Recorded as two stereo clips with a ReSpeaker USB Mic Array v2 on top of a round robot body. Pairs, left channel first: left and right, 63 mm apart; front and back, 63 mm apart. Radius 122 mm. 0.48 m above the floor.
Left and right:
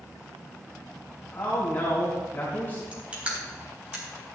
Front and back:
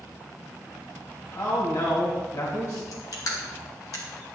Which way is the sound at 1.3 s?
30° left.